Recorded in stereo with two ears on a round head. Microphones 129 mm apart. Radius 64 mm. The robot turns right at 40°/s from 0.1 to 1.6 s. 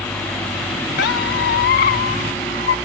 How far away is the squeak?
About 0.7 m.